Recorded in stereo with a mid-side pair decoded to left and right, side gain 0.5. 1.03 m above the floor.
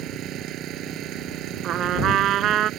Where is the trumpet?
60° right.